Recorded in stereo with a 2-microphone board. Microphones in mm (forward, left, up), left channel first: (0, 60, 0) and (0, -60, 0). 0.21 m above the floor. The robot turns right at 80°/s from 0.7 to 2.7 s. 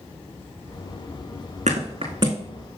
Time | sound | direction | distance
1.7 | a thud | 85° right | 3.5 m